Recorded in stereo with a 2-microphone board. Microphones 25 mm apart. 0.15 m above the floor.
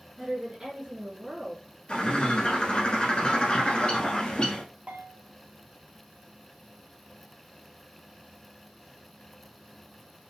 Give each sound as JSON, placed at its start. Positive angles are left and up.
{"t": 0.2, "sound": "a woman speaking", "side_deg": -20, "distance_m": 1.6}
{"t": 1.9, "sound": "a bird", "side_deg": 40, "distance_m": 1.0}
{"t": 4.9, "sound": "a bell", "side_deg": -65, "distance_m": 0.6}